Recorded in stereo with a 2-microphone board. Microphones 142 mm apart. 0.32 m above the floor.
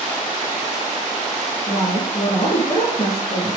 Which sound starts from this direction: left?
A woman speaking, at 1.7 s.